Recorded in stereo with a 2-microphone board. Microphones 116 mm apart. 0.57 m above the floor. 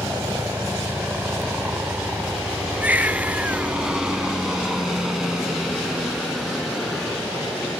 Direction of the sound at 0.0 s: 20° right (ahead or behind).